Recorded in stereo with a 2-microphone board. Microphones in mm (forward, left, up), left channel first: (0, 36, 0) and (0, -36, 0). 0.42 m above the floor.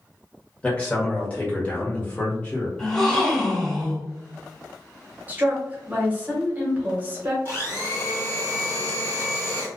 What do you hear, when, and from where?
0.6 s a man speaking: 15° left (ahead or behind), 1.2 m
2.8 s a gasp: 10° left (ahead or behind), 1.4 m
5.3 s a woman speaking: 25° right (ahead or behind), 0.9 m
7.5 s a blender: 30° left (ahead or behind), 1.6 m